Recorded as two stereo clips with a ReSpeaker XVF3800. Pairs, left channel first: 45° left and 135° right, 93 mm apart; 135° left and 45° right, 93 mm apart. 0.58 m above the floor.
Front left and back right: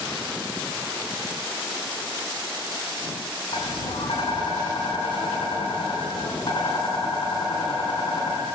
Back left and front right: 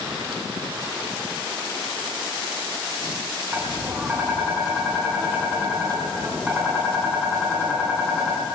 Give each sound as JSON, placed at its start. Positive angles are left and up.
{"t": 3.5, "sound": "tapping", "azimuth_deg": 25, "distance_m": 4.5}